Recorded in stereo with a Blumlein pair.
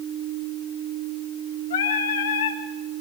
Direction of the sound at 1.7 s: 60° left.